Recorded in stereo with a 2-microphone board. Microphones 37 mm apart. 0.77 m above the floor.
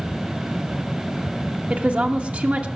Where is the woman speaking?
40° right (ahead or behind), 1.2 m.